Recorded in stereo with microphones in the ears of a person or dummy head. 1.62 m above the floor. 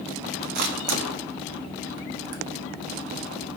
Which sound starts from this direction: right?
A camera shutter, at 0.6 s.